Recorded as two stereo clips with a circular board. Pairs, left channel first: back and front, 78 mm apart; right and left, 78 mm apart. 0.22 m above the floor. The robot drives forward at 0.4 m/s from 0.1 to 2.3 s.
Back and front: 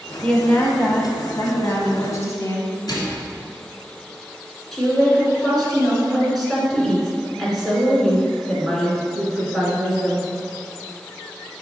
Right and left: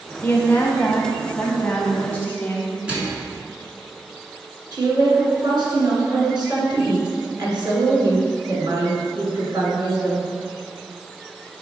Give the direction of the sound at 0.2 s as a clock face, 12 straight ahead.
4 o'clock.